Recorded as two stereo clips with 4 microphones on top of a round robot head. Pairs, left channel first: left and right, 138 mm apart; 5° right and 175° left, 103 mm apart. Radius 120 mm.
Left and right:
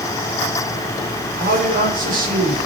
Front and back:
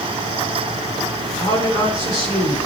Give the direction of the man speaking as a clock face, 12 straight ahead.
2 o'clock.